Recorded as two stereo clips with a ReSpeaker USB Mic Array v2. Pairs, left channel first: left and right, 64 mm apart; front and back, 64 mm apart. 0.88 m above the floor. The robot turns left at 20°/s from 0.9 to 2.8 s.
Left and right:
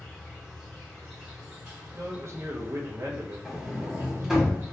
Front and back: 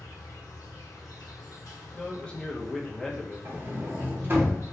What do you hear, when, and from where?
0.0 s an insect: straight ahead, 1.3 m; by 4.7 s 40° right, 1.3 m
1.9 s a man speaking: 65° right, 0.6 m; by 4.5 s 80° right, 0.6 m
3.5 s a sliding door: 170° right, 0.6 m